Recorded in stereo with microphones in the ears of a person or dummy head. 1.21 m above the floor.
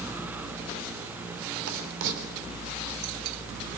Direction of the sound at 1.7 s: 70° right (ahead or behind).